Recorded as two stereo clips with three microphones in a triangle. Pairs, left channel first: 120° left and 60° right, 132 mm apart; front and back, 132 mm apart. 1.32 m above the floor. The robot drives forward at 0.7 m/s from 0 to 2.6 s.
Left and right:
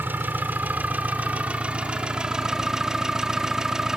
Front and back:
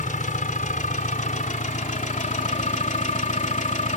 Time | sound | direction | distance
0.0 | an engine running | 15° left | ?